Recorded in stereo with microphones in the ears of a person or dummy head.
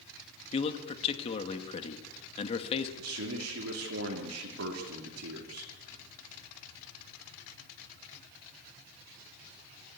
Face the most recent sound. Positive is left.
turn(degrees=-85)